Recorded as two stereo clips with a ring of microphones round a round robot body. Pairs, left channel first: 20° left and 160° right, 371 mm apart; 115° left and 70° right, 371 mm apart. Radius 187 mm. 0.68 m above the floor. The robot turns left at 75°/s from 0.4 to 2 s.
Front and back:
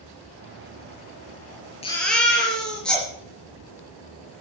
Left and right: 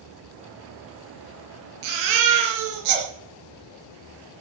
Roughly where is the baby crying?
Ahead right.